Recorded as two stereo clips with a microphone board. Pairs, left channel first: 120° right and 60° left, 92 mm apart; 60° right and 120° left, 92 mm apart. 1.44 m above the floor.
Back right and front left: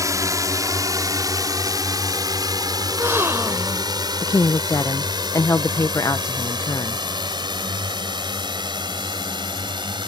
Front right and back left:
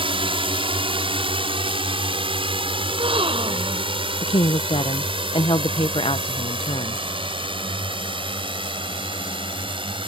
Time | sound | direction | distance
0.0 | a drone | 115° left | ?
2.9 | a gasp | 125° left | ?
4.2 | a woman speaking | 65° right | ?